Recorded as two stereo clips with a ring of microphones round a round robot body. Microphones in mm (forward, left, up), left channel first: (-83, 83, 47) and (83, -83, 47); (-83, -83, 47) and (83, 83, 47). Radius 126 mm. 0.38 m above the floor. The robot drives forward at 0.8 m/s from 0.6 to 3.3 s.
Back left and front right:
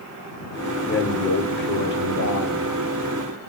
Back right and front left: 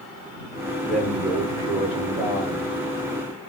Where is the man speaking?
130° left, 1.0 m; by 2.8 s 170° left, 2 m.